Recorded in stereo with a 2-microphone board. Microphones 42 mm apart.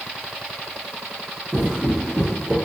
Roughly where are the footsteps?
Centre.